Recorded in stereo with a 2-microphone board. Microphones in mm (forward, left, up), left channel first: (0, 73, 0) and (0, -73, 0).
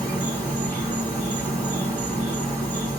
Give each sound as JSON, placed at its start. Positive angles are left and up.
{"t": 0.0, "sound": "an insect", "side_deg": 15, "distance_m": 2.5}